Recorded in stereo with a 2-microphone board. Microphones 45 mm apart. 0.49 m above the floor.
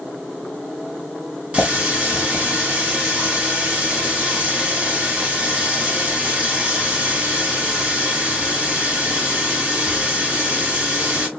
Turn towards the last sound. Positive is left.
turn(degrees=-25)  # may be behind; listen again after turning